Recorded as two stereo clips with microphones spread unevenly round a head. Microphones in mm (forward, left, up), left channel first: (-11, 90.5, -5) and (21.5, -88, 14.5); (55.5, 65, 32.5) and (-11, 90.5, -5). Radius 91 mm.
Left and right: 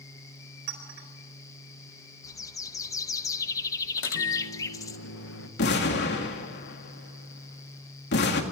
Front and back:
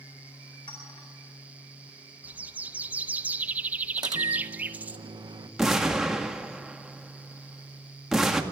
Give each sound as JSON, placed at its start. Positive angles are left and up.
{"t": 0.7, "sound": "a clink", "azimuth_deg": -65, "distance_m": 4.0}
{"t": 2.2, "sound": "a bird", "azimuth_deg": 40, "distance_m": 0.7}
{"t": 4.0, "sound": "a microwave", "azimuth_deg": 130, "distance_m": 1.5}
{"t": 5.6, "sound": "an explosion", "azimuth_deg": 65, "distance_m": 2.0}